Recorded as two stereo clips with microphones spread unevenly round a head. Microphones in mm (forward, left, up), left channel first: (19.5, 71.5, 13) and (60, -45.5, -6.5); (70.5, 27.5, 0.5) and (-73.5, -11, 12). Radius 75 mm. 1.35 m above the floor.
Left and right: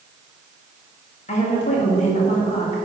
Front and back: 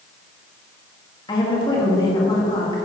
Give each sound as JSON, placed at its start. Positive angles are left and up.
{"t": 1.3, "sound": "a woman speaking", "azimuth_deg": 80, "distance_m": 1.9}